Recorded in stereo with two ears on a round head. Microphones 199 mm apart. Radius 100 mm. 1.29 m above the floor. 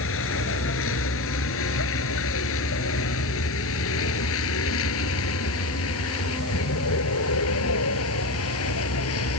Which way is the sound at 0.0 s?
65° left (ahead or behind).